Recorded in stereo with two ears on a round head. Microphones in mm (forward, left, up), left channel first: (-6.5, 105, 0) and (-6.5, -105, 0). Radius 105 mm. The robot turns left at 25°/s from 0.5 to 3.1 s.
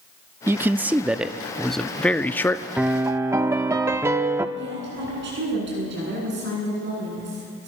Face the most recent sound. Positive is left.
turn(degrees=-50)  # may be behind; listen again after turning